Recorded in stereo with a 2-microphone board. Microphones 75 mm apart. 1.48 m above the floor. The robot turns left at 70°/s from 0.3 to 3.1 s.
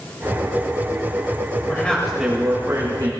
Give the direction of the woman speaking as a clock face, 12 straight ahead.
11 o'clock.